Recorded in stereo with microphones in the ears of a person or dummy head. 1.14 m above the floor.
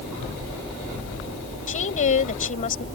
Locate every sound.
1.7 s a woman speaking: 45° left (ahead or behind)